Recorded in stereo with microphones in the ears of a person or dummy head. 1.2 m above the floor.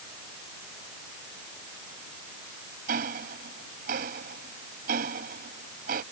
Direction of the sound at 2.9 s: 45° right (ahead or behind).